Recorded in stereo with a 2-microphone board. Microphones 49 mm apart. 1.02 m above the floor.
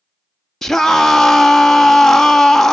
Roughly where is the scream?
Centre.